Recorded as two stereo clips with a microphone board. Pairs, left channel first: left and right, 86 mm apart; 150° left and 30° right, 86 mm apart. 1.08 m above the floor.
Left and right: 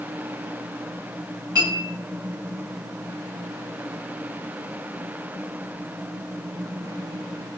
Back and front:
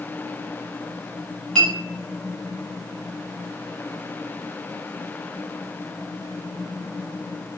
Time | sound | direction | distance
1.6 | a clink | 135° right | 1.3 m